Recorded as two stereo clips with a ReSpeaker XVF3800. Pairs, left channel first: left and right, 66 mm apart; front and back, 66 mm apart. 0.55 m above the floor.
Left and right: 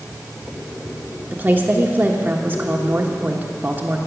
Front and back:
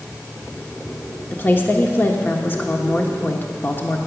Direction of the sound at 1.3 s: 45° right.